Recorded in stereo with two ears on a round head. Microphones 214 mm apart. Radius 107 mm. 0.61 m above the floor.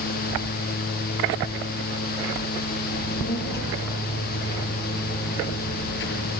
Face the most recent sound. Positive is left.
turn(degrees=50)  # may be behind; listen again after turning